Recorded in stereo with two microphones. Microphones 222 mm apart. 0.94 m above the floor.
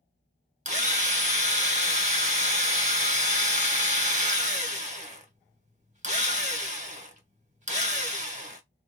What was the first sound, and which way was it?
A drill, 30° right (ahead or behind).